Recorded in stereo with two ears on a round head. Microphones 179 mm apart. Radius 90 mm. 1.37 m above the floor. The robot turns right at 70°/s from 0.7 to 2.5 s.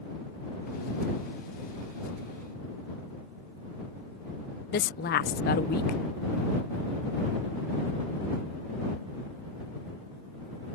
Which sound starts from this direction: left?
A woman speaking, at 4.7 s.